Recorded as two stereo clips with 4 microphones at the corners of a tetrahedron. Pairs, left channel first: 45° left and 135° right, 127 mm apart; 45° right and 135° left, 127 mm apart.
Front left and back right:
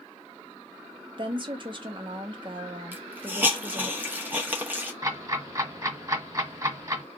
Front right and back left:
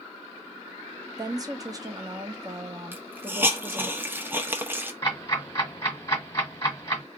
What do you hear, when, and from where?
1.2 s a woman speaking: 175° right, 0.6 m
2.9 s a hiss: straight behind, 0.6 m
5.0 s ticking: 90° right, 1.4 m